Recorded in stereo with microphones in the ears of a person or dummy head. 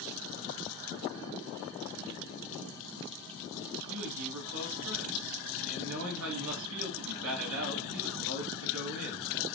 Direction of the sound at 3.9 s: 70° right (ahead or behind).